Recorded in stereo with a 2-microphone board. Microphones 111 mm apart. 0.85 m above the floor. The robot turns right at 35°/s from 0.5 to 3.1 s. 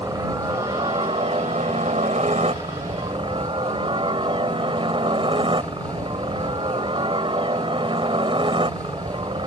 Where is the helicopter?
140° right; by 9.5 s 50° right.